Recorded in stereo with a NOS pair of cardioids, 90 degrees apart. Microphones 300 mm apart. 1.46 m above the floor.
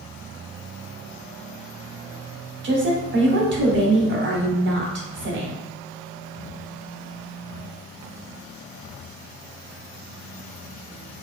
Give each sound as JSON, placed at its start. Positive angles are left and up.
{"t": 2.6, "sound": "a woman speaking", "azimuth_deg": -35, "distance_m": 1.0}